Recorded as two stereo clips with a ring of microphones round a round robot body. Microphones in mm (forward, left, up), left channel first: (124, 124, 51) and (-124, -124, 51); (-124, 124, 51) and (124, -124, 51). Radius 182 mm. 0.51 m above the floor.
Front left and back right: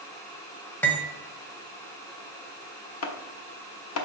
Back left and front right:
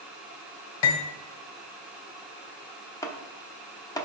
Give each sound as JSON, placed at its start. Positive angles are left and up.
{"t": 0.8, "sound": "cutlery clinking", "azimuth_deg": 130, "distance_m": 1.4}
{"t": 3.0, "sound": "chopping", "azimuth_deg": 60, "distance_m": 0.9}